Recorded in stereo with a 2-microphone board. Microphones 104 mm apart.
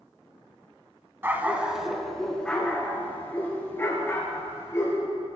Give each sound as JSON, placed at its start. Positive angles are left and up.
{"t": 1.2, "sound": "a dog barking", "side_deg": -20, "distance_m": 1.0}